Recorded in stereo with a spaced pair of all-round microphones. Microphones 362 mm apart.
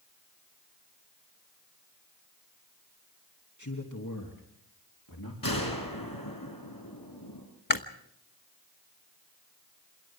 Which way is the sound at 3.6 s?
50° left (ahead or behind).